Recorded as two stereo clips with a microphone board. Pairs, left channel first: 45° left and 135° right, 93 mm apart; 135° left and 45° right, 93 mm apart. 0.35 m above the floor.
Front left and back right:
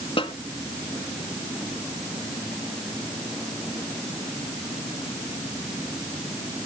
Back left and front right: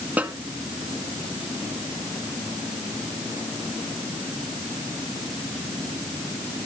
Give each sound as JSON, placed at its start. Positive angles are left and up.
{"t": 0.2, "sound": "a snare drum", "azimuth_deg": 30, "distance_m": 1.4}